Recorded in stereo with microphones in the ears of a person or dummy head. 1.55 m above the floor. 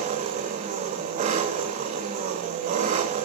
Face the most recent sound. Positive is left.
turn(degrees=-45)  # may be behind; listen again after turning